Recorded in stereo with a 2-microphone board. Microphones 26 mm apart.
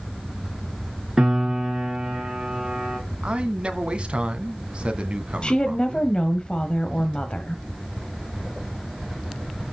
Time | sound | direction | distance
1.2 | a piano | 20° right (ahead or behind) | 6.5 m
3.2 | a man speaking | 40° right (ahead or behind) | 1.9 m
5.4 | a woman speaking | 35° left (ahead or behind) | 1.6 m